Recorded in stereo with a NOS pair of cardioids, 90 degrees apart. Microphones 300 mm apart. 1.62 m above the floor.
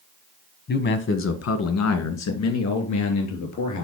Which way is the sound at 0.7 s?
40° left.